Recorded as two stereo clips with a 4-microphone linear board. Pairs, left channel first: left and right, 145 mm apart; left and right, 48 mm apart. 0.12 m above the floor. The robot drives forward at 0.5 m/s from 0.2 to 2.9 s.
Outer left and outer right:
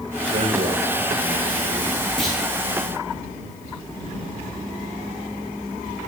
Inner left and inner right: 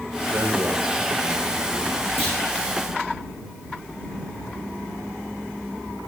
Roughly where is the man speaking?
Right.